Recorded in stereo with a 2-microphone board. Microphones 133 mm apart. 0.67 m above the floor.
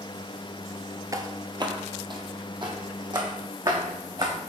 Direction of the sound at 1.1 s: 30° right (ahead or behind).